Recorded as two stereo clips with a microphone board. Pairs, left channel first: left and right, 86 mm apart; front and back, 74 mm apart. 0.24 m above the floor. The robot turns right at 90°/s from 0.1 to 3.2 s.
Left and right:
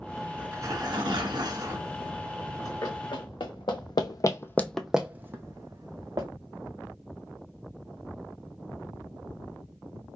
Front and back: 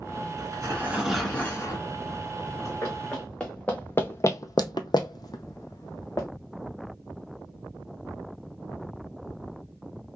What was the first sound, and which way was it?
Tearing paper, 160° right.